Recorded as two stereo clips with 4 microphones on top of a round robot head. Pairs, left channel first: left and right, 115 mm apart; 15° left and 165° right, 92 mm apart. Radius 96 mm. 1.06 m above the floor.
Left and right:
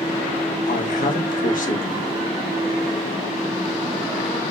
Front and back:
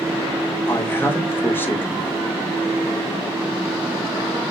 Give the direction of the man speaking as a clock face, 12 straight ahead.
9 o'clock.